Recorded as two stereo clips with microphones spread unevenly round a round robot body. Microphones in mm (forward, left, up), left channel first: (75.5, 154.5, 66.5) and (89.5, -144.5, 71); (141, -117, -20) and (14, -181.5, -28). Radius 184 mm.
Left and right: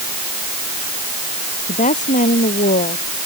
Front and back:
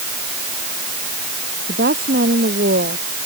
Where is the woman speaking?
165° left.